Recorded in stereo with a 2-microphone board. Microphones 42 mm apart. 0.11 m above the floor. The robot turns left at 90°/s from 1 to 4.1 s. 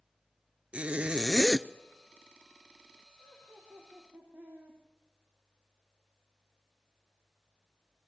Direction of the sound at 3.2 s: 40° right.